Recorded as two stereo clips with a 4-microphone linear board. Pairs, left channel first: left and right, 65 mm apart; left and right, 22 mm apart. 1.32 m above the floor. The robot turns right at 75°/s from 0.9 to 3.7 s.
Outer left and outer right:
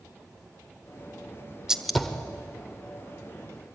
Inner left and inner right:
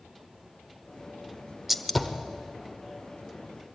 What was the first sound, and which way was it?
A gunshot, 10° right (ahead or behind).